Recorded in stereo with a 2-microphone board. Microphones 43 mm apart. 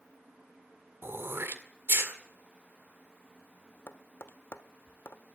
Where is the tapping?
60° left (ahead or behind), 1.2 m.